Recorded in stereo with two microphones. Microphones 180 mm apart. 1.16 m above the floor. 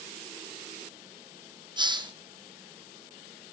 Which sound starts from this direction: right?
A hiss, at 1.8 s.